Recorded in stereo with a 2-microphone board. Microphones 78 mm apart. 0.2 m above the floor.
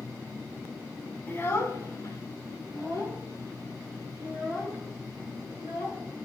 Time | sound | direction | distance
1.3 | a child speaking | 25° left (ahead or behind) | 0.9 m